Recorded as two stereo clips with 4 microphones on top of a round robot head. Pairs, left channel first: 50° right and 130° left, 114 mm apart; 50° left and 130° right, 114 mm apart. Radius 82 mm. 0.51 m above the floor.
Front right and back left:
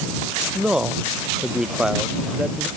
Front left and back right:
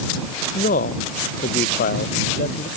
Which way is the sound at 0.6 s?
45° left.